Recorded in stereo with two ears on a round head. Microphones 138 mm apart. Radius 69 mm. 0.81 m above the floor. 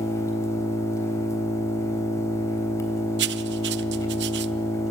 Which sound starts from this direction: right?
Writing, at 3.2 s.